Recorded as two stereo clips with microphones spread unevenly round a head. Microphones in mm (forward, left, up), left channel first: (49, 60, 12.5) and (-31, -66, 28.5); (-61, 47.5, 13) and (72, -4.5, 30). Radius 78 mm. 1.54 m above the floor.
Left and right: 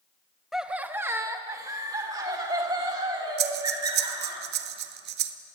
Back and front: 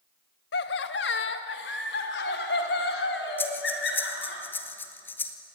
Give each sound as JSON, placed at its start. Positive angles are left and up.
{"t": 0.5, "sound": "laughter", "azimuth_deg": 150, "distance_m": 1.0}
{"t": 3.4, "sound": "breathing", "azimuth_deg": -120, "distance_m": 1.1}